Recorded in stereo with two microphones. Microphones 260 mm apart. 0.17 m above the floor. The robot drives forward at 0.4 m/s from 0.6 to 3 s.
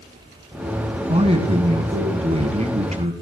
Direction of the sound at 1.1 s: 20° right (ahead or behind).